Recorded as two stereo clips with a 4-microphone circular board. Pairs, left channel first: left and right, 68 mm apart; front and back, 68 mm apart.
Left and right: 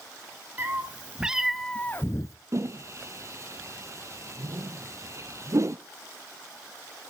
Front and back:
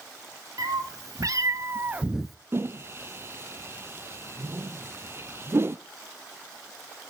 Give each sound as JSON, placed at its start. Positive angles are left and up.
{"t": 0.6, "sound": "a cat meowing", "azimuth_deg": -150, "distance_m": 1.4}
{"t": 2.5, "sound": "a whoosh", "azimuth_deg": -130, "distance_m": 0.7}